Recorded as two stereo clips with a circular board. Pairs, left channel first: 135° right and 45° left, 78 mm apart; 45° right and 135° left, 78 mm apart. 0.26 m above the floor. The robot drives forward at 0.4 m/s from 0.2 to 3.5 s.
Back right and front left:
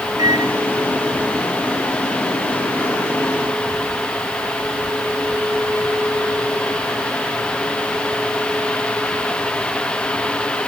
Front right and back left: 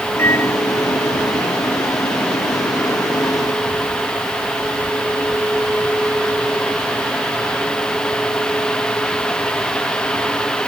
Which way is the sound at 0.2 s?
10° left.